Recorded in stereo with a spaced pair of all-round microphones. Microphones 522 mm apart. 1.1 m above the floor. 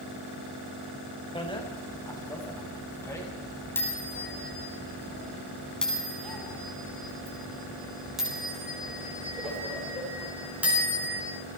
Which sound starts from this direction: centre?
A bicycle bell, at 1.4 s.